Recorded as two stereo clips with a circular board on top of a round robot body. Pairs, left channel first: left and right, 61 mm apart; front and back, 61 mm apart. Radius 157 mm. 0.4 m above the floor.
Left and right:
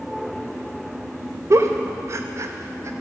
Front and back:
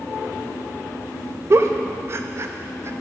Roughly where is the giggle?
Behind right.